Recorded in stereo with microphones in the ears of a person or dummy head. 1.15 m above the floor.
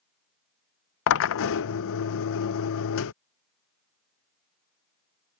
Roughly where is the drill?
Left.